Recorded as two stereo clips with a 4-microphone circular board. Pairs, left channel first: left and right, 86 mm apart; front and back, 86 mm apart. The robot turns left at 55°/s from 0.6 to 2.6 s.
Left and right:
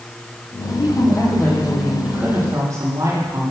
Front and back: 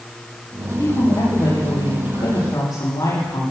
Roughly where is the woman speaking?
Ahead left.